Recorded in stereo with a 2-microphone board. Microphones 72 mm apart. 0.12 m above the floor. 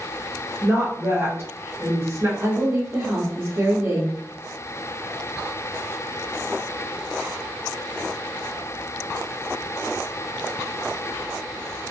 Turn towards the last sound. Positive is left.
turn(degrees=-35)  # may be behind; listen again after turning